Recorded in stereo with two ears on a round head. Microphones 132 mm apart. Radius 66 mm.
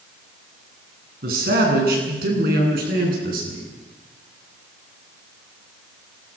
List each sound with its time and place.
1.2 s a man speaking: 65° right (ahead or behind), 8.5 m